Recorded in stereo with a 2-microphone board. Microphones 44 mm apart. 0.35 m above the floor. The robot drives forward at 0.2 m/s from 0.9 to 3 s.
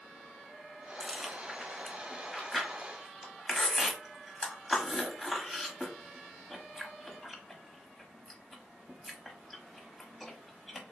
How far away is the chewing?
About 0.7 m.